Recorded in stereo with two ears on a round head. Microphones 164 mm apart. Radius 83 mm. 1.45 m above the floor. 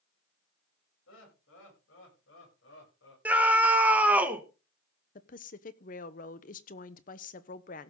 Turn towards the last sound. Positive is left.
turn(degrees=45)  # may be behind; listen again after turning